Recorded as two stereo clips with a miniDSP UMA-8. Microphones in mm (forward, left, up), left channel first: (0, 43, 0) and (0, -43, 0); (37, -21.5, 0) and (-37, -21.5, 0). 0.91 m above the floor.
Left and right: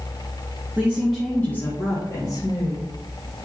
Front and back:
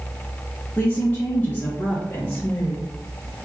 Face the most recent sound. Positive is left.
turn(degrees=70)